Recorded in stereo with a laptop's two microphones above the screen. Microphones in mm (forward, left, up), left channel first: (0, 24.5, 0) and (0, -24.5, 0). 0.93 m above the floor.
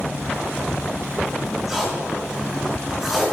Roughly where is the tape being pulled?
Centre.